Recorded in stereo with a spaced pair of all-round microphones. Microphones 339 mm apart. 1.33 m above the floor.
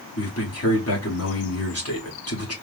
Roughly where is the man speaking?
Left.